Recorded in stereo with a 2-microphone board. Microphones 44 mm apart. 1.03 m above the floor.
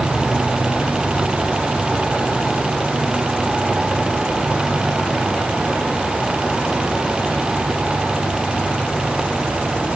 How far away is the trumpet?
I don't hear a trumpet.